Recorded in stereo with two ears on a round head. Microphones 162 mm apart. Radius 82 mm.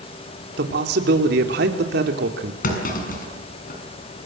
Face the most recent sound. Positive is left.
turn(degrees=50)  # may be behind; listen again after turning